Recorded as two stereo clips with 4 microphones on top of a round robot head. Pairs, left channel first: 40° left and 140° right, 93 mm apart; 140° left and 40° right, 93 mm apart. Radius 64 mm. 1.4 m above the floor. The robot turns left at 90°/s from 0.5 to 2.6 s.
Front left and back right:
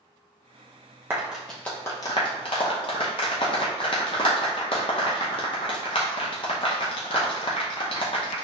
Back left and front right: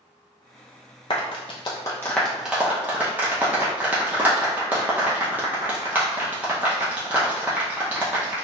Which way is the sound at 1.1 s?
165° left.